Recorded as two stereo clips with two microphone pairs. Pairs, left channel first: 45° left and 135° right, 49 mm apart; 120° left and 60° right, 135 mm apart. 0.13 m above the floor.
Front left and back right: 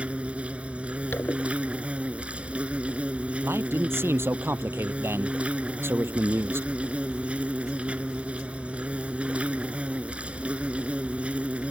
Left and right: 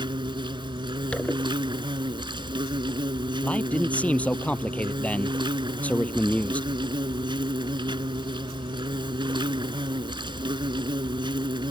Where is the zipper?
35° left.